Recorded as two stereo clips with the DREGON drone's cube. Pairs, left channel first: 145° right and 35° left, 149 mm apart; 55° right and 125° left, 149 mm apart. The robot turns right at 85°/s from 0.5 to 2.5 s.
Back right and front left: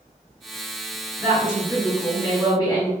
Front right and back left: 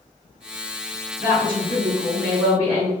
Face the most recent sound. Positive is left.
turn(degrees=-165)